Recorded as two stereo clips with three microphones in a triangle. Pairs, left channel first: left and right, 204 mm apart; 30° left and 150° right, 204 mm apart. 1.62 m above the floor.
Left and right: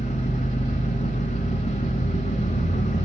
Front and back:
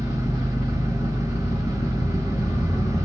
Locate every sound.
0.0 s an engine running: 140° left, 2.5 m